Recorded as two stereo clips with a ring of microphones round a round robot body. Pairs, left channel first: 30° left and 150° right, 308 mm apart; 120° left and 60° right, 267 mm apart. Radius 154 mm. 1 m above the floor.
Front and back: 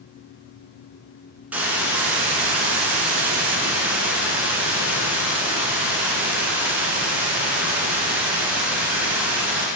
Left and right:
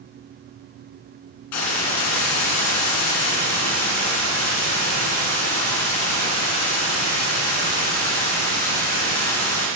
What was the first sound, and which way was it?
A hiss, 125° left.